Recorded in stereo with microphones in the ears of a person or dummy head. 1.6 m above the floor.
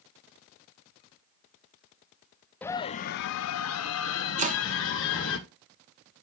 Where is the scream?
15° left (ahead or behind), 0.5 m; by 5.4 s 65° left (ahead or behind), 2 m.